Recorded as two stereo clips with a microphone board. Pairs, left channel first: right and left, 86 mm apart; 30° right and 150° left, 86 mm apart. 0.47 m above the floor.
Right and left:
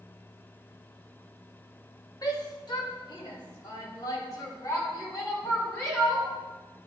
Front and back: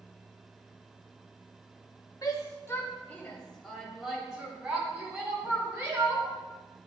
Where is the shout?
65° right, 1.3 m; by 6.3 s 150° right, 3.5 m.